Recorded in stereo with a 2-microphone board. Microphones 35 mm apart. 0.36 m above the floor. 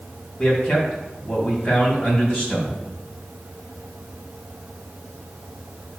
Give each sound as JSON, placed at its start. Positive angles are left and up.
{"t": 0.4, "sound": "a man speaking", "side_deg": 30, "distance_m": 3.0}